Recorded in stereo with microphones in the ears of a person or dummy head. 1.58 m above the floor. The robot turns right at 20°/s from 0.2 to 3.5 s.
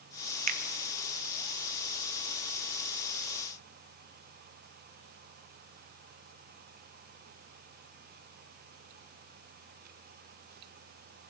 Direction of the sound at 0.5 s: 40° right (ahead or behind).